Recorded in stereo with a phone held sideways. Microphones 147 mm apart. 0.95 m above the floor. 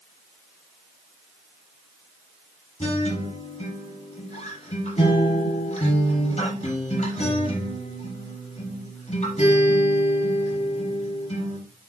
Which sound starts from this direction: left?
A guitar, at 2.8 s.